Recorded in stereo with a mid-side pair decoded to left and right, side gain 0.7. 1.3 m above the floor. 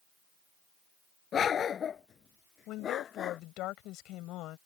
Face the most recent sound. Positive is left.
turn(degrees=60)